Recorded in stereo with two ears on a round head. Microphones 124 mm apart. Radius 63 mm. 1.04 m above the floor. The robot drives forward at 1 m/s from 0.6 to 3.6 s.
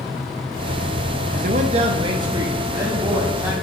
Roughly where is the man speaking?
Right.